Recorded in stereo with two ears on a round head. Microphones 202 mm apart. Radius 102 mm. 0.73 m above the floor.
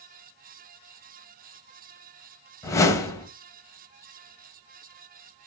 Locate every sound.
2.6 s a whoosh: 15° left (ahead or behind), 1.4 m